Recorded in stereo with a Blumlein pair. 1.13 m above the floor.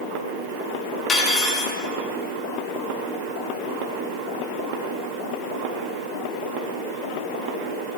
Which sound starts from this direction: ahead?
Cutlery clinking, at 1.1 s.